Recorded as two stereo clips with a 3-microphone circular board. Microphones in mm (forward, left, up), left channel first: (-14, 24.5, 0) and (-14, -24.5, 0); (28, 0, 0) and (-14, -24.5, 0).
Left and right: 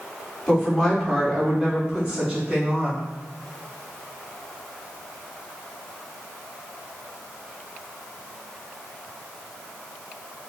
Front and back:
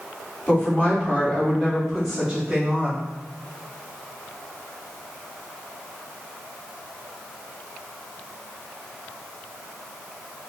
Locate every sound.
0.5 s a woman speaking: 20° left, 1.4 m; by 3.0 s 100° right, 1.4 m